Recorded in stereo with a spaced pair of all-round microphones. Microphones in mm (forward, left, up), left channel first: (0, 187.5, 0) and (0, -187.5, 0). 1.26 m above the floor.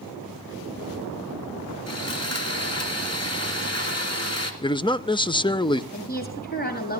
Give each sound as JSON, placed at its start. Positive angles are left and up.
{"t": 1.9, "sound": "sawing", "side_deg": 40, "distance_m": 3.5}
{"t": 4.6, "sound": "a man speaking", "side_deg": 10, "distance_m": 0.8}
{"t": 5.9, "sound": "a woman speaking", "side_deg": 25, "distance_m": 7.5}